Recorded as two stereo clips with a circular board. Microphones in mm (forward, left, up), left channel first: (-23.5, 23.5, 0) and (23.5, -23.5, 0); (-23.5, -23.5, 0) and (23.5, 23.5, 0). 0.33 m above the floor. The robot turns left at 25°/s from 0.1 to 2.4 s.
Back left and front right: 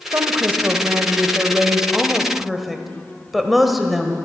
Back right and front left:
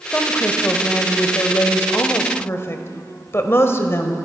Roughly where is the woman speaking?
Right.